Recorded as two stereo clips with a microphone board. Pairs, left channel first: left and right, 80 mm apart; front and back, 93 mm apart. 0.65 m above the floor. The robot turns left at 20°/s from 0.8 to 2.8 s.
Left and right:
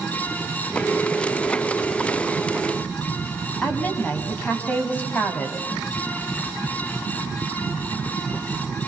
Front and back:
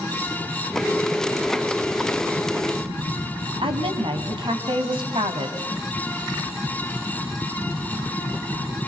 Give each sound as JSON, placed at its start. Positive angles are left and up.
{"t": 3.6, "sound": "a woman speaking", "azimuth_deg": 160, "distance_m": 5.0}